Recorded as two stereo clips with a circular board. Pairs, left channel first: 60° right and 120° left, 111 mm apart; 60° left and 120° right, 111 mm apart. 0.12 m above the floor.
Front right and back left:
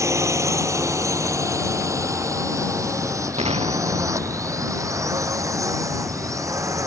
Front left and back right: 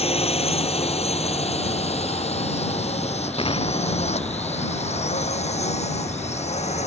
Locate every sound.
0.0 s a drone: 60° left
3.4 s an explosion: 95° left